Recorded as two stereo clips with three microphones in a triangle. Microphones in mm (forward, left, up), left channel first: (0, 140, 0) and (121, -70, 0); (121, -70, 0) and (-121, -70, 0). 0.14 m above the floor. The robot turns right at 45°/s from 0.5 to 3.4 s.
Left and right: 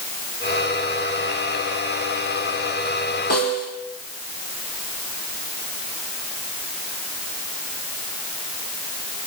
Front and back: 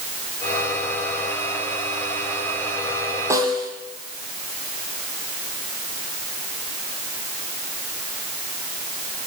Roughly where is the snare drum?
Left.